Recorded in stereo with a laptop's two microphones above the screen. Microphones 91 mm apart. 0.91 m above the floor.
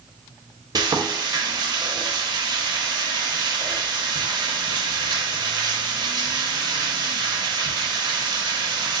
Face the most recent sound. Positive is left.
turn(degrees=-55)  # may be behind; listen again after turning